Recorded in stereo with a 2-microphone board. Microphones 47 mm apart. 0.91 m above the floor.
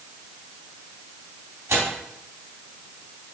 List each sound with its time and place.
1.7 s tearing paper: 80° right, 3.5 m